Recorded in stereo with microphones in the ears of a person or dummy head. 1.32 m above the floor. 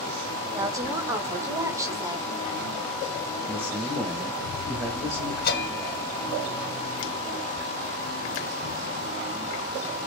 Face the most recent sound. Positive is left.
turn(degrees=60)  # may be behind; listen again after turning